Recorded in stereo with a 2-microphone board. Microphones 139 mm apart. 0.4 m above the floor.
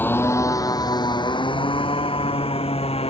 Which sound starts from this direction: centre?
A motorcycle, at 0.0 s.